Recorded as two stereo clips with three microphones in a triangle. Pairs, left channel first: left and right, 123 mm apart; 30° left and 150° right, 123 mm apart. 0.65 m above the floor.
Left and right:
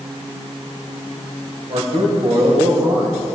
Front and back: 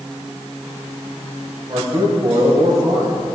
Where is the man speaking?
95° right, 3.5 m.